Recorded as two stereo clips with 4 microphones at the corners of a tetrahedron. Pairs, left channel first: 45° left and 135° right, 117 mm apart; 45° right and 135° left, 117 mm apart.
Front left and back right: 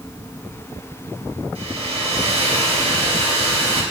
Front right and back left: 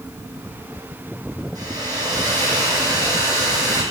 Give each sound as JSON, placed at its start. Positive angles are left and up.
{"t": 1.6, "sound": "a hair dryer", "azimuth_deg": -165, "distance_m": 2.5}